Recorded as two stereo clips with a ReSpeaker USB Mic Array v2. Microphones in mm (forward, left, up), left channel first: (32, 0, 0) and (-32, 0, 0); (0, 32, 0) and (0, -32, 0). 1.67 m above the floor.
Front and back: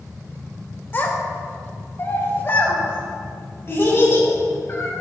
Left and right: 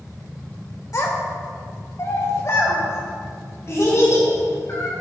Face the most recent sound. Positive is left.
turn(degrees=45)